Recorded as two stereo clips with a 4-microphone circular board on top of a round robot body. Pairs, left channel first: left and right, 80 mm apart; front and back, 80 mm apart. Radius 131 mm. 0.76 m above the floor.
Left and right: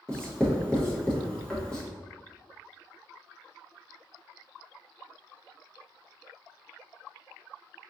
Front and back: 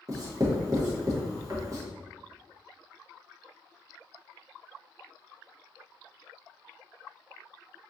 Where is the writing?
165° left, 1.2 m.